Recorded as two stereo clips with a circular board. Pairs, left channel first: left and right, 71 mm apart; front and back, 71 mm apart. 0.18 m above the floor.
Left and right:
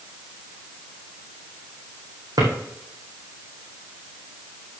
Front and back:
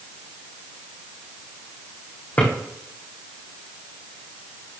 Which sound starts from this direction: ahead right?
A drawer, at 2.4 s.